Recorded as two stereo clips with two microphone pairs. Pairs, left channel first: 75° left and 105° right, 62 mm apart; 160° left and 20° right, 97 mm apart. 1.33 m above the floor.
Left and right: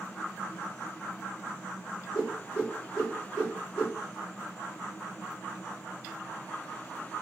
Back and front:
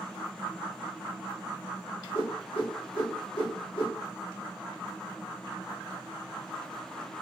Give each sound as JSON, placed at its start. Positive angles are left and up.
{"t": 2.1, "sound": "a whoosh", "azimuth_deg": 145, "distance_m": 3.5}